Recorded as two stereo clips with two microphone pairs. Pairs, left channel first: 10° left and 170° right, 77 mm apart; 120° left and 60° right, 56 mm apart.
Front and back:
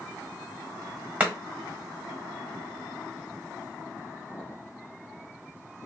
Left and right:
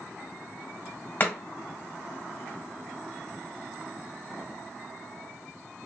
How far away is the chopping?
About 1.2 m.